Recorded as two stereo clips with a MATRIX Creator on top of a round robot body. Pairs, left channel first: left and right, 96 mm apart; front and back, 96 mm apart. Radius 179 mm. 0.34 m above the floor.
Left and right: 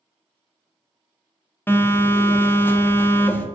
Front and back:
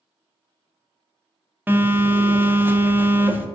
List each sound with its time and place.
1.7 s a phone buzzing: 130° left, 0.6 m